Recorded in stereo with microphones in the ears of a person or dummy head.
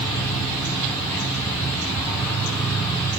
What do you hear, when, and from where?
0.0 s an insect: 10° left (ahead or behind), 1.1 m